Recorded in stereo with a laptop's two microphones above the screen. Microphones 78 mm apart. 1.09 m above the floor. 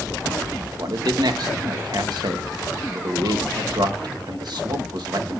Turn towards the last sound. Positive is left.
turn(degrees=-65)  # may be behind; listen again after turning